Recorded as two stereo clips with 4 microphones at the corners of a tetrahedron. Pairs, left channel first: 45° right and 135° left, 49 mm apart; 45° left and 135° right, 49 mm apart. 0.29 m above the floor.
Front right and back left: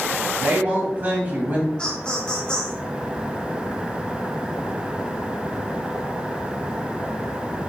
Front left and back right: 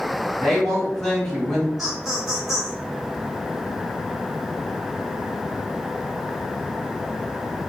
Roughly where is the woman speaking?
Behind left.